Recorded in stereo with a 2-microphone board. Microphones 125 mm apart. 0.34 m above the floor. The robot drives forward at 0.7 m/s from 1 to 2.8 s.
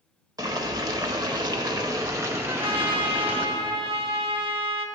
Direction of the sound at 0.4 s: 30° right (ahead or behind).